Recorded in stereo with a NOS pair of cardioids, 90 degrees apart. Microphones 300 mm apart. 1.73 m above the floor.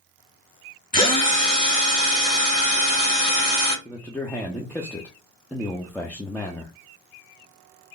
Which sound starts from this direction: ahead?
A man speaking, at 3.9 s.